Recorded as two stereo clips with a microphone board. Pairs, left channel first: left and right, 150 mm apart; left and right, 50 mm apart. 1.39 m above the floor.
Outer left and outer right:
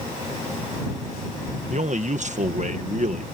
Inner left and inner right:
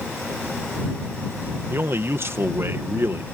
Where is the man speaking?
55° right (ahead or behind).